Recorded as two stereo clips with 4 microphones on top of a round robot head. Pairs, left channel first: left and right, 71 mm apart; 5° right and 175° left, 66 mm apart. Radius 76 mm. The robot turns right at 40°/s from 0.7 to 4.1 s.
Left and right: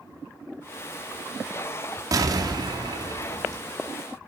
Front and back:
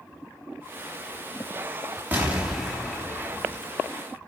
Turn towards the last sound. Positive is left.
turn(degrees=-40)